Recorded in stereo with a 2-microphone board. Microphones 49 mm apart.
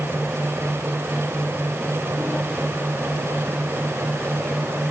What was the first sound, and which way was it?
Only background noise.